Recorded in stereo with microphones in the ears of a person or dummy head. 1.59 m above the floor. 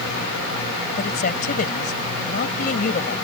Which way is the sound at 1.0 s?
50° left (ahead or behind).